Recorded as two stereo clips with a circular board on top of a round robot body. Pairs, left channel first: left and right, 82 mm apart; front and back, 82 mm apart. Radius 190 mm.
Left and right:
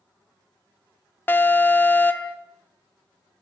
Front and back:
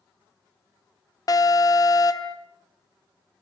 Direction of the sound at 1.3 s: 30° left.